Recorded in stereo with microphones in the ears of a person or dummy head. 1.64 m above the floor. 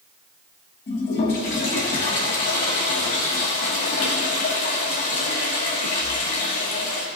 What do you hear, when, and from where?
0.9 s a toilet flushing: 35° left (ahead or behind), 1.3 m